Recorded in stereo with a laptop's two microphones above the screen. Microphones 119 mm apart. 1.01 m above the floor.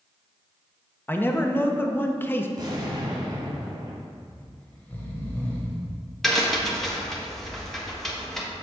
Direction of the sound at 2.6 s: 40° right (ahead or behind).